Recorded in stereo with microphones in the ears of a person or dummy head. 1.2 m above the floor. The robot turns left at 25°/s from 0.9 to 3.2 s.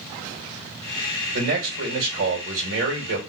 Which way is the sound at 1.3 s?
80° right.